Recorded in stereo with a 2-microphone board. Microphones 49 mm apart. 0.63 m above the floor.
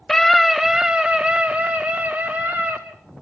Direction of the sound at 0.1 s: 10° left (ahead or behind).